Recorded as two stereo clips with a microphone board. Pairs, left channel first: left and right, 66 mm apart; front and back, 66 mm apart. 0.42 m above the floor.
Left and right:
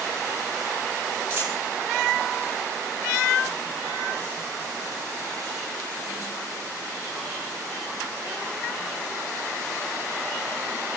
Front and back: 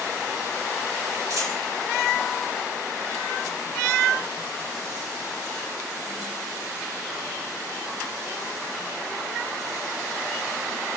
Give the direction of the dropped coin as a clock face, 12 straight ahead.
5 o'clock.